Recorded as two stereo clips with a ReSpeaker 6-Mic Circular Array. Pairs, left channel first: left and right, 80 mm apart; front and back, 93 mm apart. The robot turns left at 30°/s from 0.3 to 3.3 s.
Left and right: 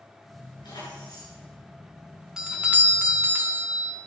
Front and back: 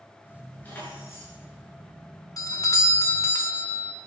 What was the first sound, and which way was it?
Keys jangling, 75° left.